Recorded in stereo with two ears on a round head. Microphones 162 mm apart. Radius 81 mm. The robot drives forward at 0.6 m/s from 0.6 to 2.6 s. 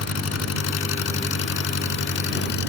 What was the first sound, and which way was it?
An engine running, 80° left.